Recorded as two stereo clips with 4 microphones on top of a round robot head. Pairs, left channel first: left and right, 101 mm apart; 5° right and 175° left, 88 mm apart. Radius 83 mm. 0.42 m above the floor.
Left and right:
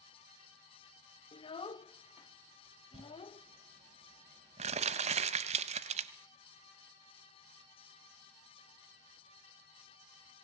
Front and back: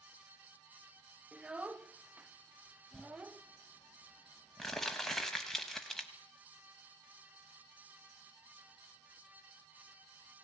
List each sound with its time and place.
1.3 s a child speaking: 100° left, 0.7 m
2.9 s crumpling: 95° right, 0.9 m